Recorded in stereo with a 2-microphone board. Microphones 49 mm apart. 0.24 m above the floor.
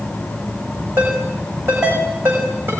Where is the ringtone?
50° right (ahead or behind), 9 m.